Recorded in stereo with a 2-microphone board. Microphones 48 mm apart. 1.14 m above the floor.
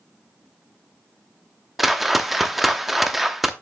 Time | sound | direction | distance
1.8 | a whoosh | 5° right (ahead or behind) | 0.7 m